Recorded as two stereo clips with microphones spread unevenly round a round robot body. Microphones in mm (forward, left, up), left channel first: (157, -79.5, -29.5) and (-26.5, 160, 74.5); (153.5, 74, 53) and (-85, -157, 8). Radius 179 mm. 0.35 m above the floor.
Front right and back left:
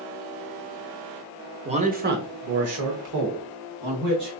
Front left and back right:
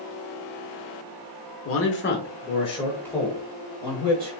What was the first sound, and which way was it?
A man speaking, 40° left.